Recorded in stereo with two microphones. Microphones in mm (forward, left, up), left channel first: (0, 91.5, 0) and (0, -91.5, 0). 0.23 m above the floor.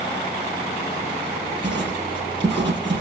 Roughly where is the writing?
Right.